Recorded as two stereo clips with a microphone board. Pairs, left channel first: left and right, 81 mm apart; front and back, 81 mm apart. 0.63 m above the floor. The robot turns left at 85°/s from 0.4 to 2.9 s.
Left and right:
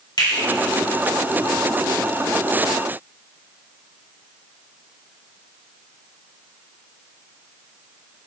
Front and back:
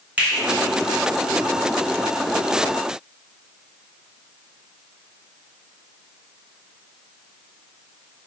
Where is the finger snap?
110° left, 1.9 m.